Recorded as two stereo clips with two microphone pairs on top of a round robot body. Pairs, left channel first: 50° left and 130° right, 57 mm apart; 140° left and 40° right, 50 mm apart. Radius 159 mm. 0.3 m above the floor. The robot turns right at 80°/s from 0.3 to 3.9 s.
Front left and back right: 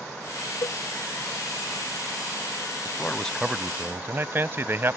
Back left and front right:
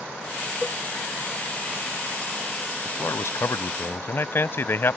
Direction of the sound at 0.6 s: 55° left.